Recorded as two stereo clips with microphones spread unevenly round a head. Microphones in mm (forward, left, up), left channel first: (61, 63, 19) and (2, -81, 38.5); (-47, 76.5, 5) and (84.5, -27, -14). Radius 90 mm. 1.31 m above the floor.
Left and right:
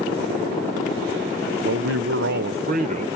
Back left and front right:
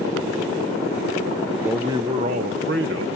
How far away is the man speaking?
About 1.1 m.